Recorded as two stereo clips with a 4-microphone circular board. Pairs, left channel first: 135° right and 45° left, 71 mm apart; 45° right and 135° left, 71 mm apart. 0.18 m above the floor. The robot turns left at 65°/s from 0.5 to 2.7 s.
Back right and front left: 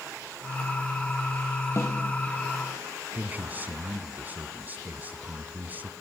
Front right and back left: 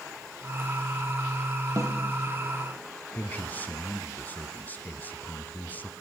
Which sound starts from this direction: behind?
A snare drum, at 1.8 s.